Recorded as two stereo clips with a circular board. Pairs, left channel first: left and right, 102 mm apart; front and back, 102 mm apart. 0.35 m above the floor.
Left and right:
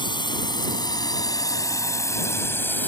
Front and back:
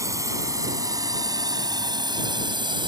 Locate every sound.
0.0 s a drone: 125° left; by 2.9 s 160° left